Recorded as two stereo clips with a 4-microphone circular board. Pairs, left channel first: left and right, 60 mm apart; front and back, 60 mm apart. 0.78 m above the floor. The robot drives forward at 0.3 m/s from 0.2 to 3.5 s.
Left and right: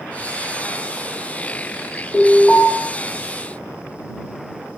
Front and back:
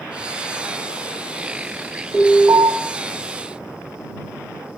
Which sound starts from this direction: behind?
An alarm, at 2.1 s.